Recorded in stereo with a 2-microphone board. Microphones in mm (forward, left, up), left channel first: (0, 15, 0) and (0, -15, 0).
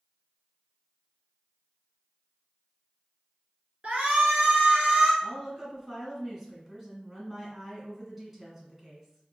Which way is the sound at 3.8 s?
50° right (ahead or behind).